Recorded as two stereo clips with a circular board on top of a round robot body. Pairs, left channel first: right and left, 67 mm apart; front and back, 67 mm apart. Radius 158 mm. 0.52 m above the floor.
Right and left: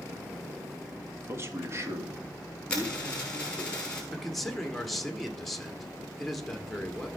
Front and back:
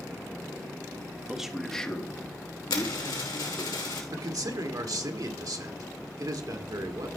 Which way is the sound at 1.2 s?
115° left.